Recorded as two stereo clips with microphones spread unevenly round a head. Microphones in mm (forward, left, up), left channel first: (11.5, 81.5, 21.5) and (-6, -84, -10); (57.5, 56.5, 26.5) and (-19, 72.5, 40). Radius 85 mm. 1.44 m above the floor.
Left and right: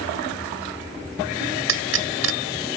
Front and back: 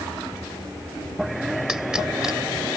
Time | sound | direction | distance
1.7 | a pop | 110° right | ?